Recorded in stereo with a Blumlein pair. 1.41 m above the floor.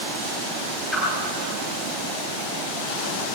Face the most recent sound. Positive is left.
turn(degrees=5)